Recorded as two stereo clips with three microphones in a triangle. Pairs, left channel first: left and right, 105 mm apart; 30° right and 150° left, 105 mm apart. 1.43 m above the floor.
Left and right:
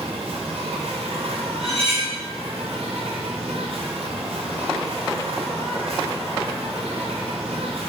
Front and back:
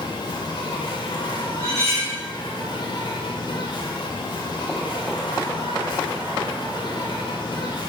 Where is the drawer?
I don't hear a drawer.